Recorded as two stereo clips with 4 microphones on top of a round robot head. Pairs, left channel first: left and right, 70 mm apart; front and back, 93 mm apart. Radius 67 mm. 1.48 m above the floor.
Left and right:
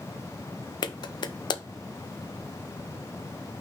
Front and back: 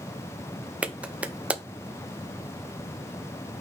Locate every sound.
0.8 s a clap: 100° left, 0.9 m